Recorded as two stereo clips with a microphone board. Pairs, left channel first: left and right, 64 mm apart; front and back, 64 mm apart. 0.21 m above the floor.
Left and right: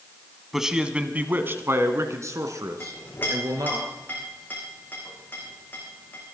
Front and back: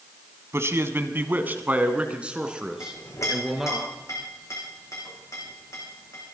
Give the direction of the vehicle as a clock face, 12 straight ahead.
I don't hear a vehicle.